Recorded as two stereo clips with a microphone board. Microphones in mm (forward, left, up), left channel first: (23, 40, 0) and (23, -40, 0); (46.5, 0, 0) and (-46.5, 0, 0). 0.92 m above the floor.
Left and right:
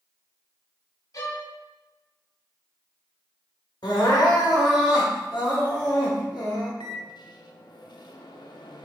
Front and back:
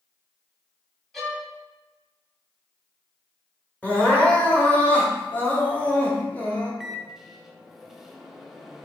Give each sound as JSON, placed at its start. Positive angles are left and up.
{"t": 1.1, "sound": "a violin", "azimuth_deg": 90, "distance_m": 1.1}
{"t": 3.8, "sound": "crying", "azimuth_deg": 70, "distance_m": 1.1}
{"t": 6.8, "sound": "a microwave", "azimuth_deg": 95, "distance_m": 0.5}